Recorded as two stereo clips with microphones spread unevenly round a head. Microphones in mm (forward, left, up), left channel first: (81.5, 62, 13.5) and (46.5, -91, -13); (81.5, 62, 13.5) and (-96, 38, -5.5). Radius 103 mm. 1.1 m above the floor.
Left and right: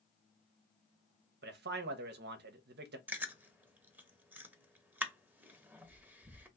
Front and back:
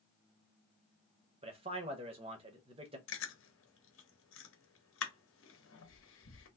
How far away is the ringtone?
I don't hear a ringtone.